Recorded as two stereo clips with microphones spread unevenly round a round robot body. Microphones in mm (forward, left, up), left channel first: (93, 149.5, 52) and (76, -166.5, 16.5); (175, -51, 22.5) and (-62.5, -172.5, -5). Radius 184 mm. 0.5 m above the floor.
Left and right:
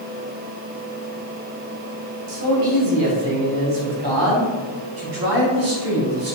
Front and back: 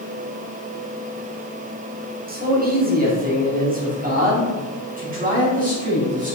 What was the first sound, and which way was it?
A man speaking, 100° right.